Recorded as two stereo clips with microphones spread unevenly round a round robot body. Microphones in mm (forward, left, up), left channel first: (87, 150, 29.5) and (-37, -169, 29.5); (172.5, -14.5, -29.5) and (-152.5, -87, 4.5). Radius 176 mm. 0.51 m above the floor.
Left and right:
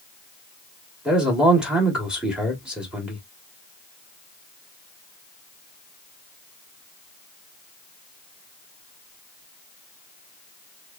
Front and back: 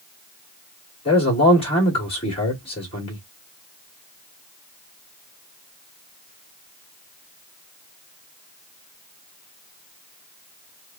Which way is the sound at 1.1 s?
25° right.